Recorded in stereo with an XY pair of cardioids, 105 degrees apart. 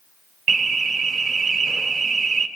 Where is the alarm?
45° right, 3 m.